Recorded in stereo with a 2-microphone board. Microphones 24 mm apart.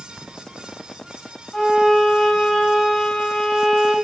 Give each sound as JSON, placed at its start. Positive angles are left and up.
{"t": 1.5, "sound": "a violin", "side_deg": 20, "distance_m": 1.3}